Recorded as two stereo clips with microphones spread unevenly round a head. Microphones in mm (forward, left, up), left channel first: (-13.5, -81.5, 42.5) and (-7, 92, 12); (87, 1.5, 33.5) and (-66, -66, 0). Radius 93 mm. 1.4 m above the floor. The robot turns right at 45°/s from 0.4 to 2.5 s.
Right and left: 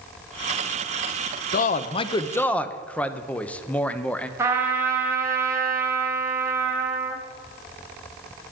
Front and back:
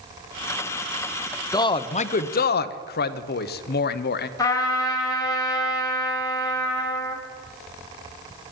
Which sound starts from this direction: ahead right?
A man speaking, at 1.5 s.